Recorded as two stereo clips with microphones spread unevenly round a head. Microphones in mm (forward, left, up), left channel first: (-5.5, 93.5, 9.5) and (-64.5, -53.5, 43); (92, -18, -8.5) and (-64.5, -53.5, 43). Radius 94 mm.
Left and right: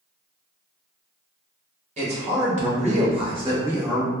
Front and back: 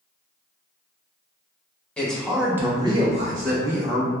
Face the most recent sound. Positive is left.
turn(degrees=160)